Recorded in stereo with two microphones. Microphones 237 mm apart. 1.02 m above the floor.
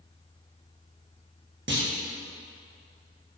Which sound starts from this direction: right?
A clunk, at 1.7 s.